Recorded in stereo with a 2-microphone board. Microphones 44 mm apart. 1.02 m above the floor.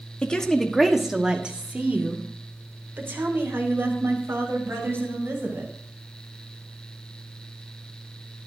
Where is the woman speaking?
25° left (ahead or behind), 1.4 m; by 5.7 s 65° right (ahead or behind), 5.5 m.